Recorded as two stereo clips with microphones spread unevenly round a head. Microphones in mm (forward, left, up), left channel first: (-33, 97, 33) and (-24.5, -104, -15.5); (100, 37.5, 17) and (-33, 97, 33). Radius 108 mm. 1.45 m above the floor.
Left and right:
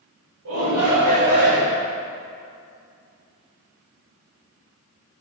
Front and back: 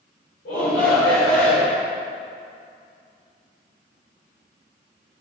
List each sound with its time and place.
0.5 s a shout: 60° right, 6 m; by 1.8 s 75° right, 5.5 m